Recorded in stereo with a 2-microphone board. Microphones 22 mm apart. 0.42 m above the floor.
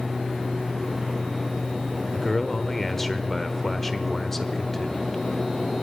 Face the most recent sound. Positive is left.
turn(degrees=15)  # may be behind; listen again after turning